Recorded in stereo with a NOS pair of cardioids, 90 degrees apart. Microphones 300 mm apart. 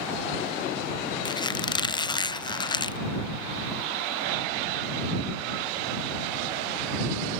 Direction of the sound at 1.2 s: 15° left.